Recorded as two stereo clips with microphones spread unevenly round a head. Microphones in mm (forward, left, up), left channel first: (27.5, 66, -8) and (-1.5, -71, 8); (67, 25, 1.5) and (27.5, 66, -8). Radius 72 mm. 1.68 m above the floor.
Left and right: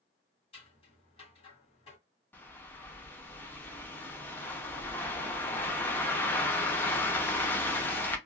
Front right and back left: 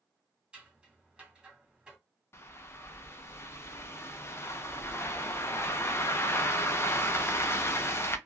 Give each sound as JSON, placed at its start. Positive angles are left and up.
{"t": 0.5, "sound": "scissors", "azimuth_deg": 65, "distance_m": 1.7}
{"t": 2.3, "sound": "a bird", "azimuth_deg": 0, "distance_m": 0.7}